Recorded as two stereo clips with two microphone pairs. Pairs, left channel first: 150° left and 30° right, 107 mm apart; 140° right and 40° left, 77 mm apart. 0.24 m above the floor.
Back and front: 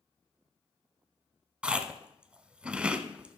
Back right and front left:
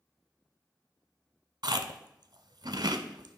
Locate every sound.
1.6 s chewing: 45° left, 0.6 m